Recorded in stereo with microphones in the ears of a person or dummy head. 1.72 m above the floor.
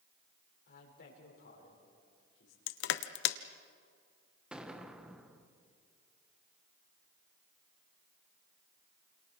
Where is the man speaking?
60° left (ahead or behind), 5.5 m.